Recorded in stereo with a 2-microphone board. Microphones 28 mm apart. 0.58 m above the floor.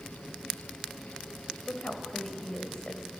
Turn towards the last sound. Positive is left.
turn(degrees=30)  # may be behind; listen again after turning